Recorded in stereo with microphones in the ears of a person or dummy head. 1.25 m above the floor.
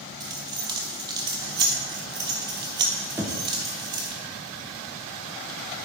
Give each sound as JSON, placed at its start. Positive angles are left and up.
{"t": 0.2, "sound": "keys jangling", "side_deg": -20, "distance_m": 0.6}
{"t": 3.2, "sound": "knocking", "side_deg": -10, "distance_m": 0.6}